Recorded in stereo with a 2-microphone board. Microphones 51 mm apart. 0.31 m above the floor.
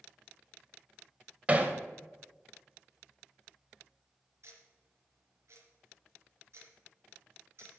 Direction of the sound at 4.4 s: 65° right (ahead or behind).